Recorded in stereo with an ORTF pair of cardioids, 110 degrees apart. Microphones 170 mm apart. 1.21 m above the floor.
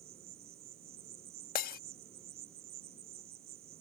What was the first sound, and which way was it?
An insect, 65° right.